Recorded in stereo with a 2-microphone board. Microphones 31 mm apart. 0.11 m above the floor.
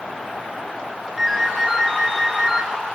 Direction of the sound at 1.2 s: 10° right (ahead or behind).